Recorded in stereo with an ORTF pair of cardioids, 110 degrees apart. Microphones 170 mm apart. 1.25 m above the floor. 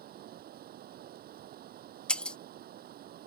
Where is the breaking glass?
5° left.